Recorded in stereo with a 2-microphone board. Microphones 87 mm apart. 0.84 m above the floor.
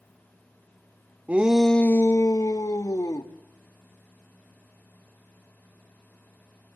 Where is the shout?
15° right (ahead or behind), 0.7 m; by 3.3 s 45° left (ahead or behind), 1.7 m.